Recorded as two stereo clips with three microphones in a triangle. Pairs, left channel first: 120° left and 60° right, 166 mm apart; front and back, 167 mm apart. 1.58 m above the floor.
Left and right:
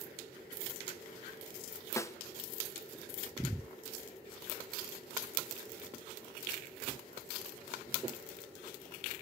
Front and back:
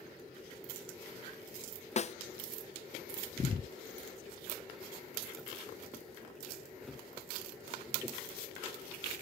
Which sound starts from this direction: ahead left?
A snare drum, at 2.0 s.